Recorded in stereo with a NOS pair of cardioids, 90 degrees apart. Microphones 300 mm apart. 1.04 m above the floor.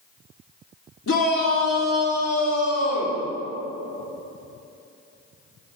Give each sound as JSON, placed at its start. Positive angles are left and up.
{"t": 1.1, "sound": "a shout", "azimuth_deg": 45, "distance_m": 1.9}